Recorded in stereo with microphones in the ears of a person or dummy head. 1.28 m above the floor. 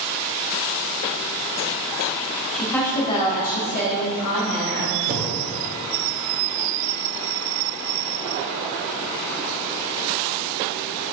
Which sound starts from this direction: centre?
A woman speaking, at 2.5 s.